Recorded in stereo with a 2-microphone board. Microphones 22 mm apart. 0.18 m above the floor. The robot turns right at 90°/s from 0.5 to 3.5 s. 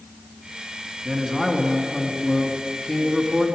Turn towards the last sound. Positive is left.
turn(degrees=-150)